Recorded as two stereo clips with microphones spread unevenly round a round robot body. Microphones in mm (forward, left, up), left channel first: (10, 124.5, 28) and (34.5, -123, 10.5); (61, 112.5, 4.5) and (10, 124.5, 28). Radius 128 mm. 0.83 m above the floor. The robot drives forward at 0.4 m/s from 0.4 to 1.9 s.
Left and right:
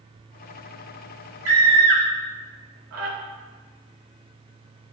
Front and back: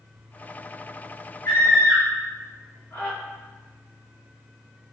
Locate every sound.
1.4 s a scream: 60° right, 2.0 m; by 3.1 s 65° right, 1.9 m